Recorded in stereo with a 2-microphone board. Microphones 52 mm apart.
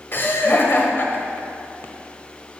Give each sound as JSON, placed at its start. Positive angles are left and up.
{"t": 0.1, "sound": "laughter", "side_deg": 45, "distance_m": 1.3}